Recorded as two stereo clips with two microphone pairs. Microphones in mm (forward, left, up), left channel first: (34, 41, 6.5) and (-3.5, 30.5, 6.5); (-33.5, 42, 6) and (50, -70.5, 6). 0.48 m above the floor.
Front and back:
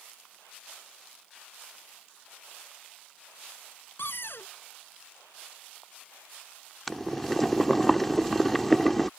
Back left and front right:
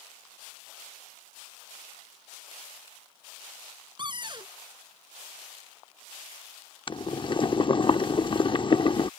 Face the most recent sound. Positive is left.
turn(degrees=95)